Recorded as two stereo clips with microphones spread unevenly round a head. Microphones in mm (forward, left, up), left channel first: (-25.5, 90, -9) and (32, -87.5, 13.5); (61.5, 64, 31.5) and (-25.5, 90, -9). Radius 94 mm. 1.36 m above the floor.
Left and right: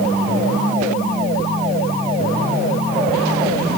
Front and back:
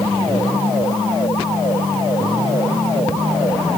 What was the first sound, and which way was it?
Only background noise.